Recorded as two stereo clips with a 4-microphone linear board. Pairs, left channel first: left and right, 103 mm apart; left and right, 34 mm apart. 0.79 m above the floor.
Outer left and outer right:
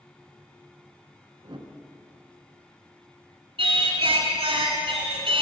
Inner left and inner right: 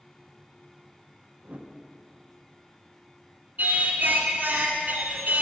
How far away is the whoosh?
About 0.8 m.